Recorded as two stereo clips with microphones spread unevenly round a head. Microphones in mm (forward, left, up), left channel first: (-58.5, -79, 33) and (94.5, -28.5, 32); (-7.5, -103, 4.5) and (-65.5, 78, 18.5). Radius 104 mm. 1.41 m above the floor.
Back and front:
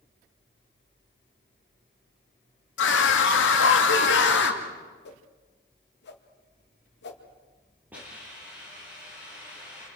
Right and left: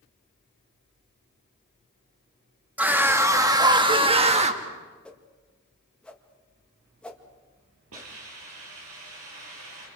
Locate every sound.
2.8 s a scream: 170° right, 2 m; by 4.6 s 160° left, 2 m
5.0 s a whoosh: 155° right, 2 m
7.9 s a hiss: 100° left, 7 m